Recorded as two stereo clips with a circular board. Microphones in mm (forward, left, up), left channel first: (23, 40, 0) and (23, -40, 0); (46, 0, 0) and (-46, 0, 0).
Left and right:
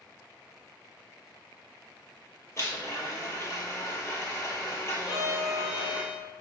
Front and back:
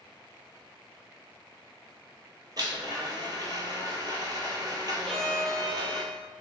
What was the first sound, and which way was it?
A blender, 140° left.